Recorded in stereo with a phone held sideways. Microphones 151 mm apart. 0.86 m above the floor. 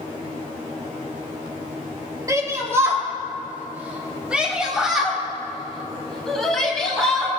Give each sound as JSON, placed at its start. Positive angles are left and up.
{"t": 2.3, "sound": "a shout", "side_deg": -25, "distance_m": 4.5}